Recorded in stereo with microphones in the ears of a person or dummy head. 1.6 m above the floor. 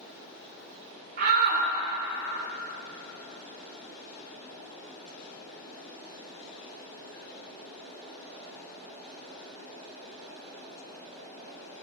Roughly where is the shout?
Right.